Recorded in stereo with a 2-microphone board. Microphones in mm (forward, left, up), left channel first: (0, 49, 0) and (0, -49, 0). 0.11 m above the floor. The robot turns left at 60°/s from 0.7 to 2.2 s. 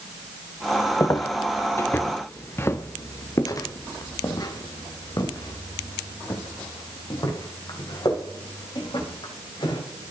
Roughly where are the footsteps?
Left.